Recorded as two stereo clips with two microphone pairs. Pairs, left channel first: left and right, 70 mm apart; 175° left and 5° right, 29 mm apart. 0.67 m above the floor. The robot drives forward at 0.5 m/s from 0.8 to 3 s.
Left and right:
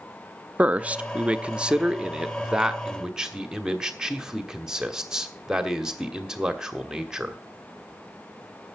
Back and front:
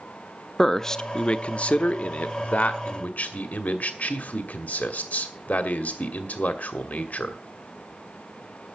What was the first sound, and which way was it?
A man speaking, 130° right.